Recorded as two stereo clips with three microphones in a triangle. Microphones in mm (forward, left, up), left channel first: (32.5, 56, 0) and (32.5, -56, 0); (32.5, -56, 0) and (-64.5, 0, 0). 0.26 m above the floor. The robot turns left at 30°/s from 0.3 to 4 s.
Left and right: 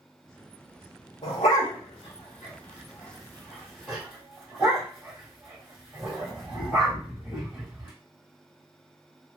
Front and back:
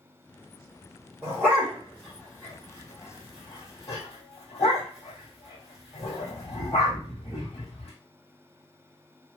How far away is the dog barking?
About 3 m.